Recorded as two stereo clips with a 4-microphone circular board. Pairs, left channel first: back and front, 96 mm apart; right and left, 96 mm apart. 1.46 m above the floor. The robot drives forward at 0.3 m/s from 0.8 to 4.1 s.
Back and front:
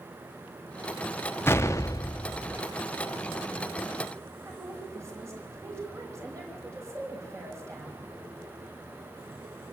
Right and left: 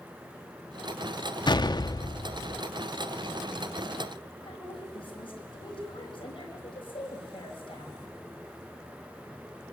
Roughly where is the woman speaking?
Ahead right.